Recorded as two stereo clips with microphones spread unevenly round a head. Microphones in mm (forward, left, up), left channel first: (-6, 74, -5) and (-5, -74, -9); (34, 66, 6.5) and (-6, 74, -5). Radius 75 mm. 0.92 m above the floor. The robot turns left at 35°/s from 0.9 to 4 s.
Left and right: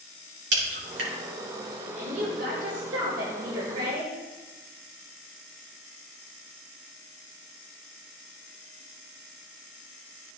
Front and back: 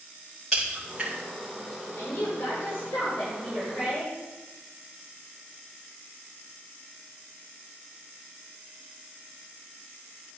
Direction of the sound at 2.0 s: 50° right.